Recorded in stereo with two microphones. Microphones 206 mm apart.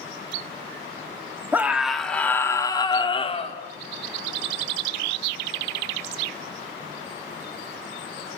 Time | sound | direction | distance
1.5 | a scream | 10° right (ahead or behind) | 3 m